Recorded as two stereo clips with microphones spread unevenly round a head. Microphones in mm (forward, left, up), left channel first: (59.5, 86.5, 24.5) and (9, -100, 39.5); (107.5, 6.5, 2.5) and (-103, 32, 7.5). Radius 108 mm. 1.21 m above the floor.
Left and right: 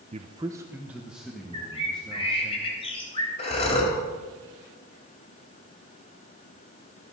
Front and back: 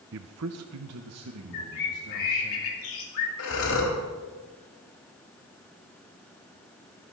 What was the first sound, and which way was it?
A man speaking, 165° right.